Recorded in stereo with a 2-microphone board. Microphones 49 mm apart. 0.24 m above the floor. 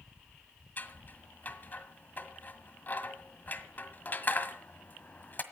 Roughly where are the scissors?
Left.